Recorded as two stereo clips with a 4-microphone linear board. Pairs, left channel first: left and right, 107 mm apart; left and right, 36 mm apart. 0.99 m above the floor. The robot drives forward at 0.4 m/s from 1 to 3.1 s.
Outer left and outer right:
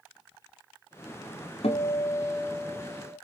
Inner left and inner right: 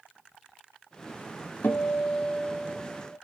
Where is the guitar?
70° left (ahead or behind), 0.9 m; by 3.1 s 55° left (ahead or behind), 1.1 m.